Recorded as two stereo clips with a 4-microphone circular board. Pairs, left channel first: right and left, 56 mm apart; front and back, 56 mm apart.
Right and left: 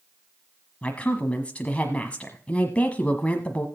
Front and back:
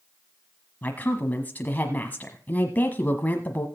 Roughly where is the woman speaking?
Ahead right.